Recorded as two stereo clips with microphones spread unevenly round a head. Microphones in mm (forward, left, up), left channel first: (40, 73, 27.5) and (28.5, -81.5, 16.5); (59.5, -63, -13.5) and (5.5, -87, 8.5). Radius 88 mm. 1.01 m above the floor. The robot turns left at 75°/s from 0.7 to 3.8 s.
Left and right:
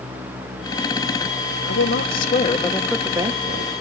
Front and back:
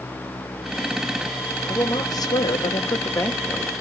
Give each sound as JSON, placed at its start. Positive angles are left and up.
{"t": 1.7, "sound": "a woman speaking", "azimuth_deg": 95, "distance_m": 3.0}